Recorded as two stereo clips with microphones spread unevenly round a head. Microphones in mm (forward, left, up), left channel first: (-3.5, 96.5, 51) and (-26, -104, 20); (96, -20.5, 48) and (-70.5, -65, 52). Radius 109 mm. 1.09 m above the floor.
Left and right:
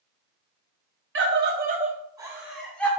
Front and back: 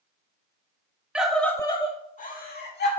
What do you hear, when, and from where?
1.1 s a scream: 80° right, 1.5 m; by 2.9 s straight ahead, 2 m